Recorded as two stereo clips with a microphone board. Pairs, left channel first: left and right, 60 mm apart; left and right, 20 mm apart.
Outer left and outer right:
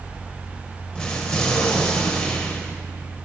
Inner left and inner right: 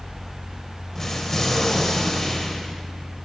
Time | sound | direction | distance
0.9 | an explosion | 10° left (ahead or behind) | 1.1 m